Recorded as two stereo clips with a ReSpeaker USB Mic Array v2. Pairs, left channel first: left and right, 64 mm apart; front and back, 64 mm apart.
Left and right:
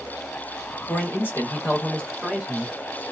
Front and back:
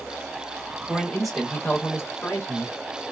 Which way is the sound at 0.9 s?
105° left.